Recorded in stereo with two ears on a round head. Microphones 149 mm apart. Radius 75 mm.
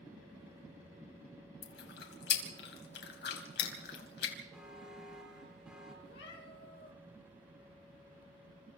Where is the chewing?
75° left (ahead or behind), 4 m.